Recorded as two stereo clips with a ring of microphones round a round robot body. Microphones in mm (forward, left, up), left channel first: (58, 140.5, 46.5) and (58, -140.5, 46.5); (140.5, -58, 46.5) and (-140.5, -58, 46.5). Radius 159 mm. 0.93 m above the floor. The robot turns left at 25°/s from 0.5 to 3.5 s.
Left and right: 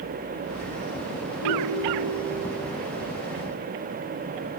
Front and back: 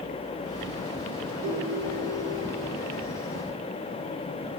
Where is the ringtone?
85° left, 4.5 m; by 2.4 s 60° left, 4.5 m.